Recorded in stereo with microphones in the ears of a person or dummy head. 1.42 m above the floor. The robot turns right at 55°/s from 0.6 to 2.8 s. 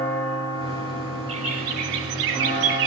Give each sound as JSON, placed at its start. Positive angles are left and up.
{"t": 1.3, "sound": "a bird", "azimuth_deg": -150, "distance_m": 3.0}